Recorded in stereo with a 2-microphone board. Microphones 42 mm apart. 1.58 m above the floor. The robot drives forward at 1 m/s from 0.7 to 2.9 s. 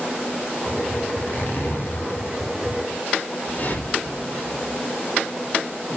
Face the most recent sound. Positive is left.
turn(degrees=45)  # may be behind; listen again after turning